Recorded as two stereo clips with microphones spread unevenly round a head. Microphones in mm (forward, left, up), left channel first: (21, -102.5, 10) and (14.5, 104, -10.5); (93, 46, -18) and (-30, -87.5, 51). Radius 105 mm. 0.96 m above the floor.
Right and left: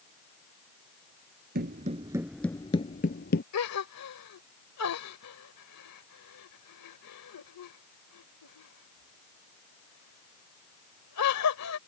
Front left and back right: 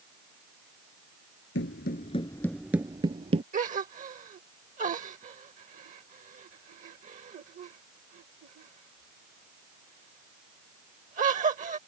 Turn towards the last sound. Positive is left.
turn(degrees=-85)